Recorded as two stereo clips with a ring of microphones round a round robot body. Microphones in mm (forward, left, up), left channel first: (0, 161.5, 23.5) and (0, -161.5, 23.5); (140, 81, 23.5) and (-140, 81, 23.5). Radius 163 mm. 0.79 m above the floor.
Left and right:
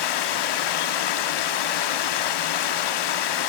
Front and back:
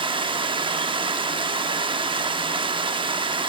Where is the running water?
105° left, 0.8 m.